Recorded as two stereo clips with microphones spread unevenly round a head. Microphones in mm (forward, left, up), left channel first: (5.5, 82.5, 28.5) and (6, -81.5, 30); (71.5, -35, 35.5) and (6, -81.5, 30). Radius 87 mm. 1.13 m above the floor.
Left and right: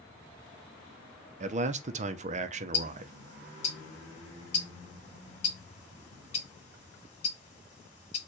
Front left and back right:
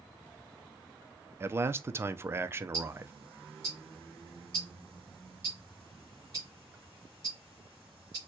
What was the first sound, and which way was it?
A man speaking, 105° right.